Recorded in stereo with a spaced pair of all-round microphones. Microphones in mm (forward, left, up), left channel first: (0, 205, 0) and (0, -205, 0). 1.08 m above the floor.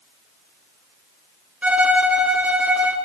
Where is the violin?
5° right (ahead or behind), 0.6 m.